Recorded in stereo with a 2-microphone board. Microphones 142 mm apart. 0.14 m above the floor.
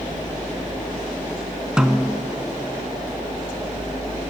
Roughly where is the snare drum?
Centre.